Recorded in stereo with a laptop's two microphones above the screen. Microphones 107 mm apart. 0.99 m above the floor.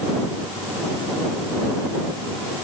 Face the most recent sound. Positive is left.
No sound to turn to.